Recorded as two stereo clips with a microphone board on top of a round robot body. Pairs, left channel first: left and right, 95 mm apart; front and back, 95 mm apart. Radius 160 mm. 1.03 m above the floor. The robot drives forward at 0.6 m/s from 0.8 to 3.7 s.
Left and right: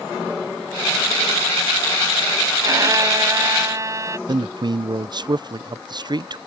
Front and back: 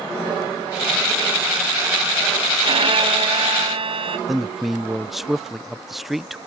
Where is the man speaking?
90° right.